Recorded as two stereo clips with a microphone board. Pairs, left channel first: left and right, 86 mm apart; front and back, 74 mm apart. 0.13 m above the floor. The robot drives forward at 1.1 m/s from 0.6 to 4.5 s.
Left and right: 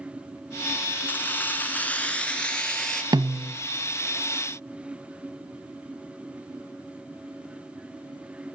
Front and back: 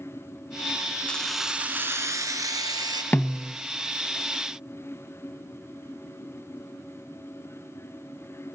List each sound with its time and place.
1.1 s keys jangling: 50° left, 1.0 m; by 3.0 s 170° left, 2 m
3.1 s a snare drum: 65° right, 0.9 m; by 3.6 s 95° right, 0.8 m